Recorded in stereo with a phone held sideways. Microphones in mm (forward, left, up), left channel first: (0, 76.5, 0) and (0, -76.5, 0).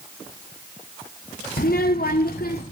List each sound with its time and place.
1.6 s a child speaking: 70° left (ahead or behind), 1.4 m; by 2.6 s 80° left, 2.5 m